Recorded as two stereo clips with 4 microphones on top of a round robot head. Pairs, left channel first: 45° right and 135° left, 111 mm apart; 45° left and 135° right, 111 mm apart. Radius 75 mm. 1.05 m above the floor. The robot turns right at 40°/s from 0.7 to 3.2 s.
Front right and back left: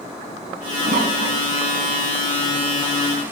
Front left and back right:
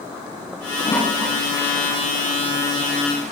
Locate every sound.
0.8 s a toilet flushing: 110° left, 9 m; by 3.3 s 155° right, 9 m